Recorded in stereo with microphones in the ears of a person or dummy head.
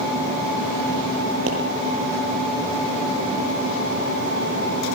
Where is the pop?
70° right (ahead or behind), 8.5 m.